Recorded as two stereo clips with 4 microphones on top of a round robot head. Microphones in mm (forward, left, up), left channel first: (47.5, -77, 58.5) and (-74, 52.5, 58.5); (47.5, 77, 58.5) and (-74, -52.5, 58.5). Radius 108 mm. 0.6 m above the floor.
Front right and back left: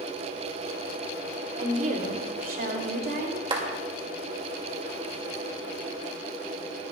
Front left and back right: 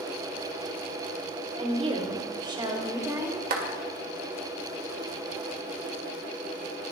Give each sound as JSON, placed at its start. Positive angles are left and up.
{"t": 1.6, "sound": "a woman speaking", "azimuth_deg": 180, "distance_m": 2.5}
{"t": 3.5, "sound": "a clap", "azimuth_deg": -165, "distance_m": 2.0}